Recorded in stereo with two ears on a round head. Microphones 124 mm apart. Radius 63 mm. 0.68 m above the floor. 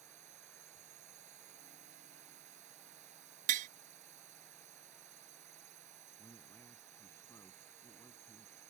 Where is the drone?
55° right (ahead or behind).